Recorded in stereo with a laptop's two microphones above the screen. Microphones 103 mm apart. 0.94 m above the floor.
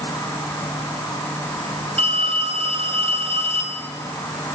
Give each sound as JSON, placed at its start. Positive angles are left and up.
{"t": 0.0, "sound": "an insect", "side_deg": 25, "distance_m": 5.5}
{"t": 2.0, "sound": "a phone ringing", "side_deg": -85, "distance_m": 3.0}